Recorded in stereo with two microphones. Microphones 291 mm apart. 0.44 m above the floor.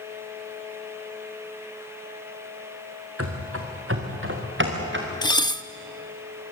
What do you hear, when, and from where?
3.2 s running footsteps: 50° right (ahead or behind), 3 m; by 5.1 s 40° right (ahead or behind), 4 m
5.2 s dishes clattering: 15° left (ahead or behind), 0.5 m